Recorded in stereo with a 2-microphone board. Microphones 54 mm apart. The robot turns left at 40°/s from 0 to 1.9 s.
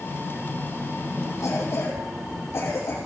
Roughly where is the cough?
Left.